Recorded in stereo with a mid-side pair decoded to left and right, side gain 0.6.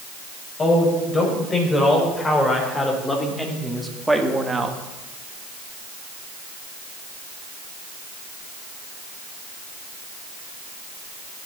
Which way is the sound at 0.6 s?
25° left.